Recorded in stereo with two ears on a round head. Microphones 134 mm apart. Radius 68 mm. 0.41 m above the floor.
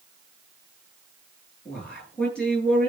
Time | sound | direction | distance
1.6 | a man speaking | 10° left (ahead or behind) | 8.5 m